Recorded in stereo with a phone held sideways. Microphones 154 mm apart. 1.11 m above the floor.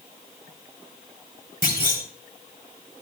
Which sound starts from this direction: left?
A clunk, at 1.6 s.